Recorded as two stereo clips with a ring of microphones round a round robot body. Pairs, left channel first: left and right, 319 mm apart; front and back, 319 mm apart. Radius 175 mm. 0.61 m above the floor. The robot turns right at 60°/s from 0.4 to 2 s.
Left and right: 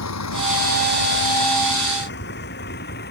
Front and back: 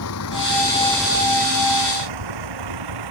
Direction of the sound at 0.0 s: 50° left.